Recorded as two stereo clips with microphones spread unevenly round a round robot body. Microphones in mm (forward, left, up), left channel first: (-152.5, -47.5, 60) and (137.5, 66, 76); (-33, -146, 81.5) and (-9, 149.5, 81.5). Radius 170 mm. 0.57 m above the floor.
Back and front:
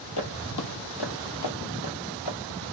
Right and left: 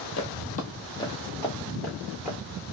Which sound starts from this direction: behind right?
Footsteps, at 0.2 s.